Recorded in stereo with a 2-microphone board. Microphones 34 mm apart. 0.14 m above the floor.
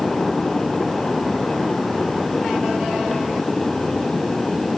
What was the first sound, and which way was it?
Only background noise.